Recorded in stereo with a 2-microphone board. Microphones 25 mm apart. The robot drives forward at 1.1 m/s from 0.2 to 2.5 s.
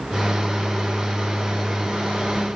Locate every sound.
Only background noise.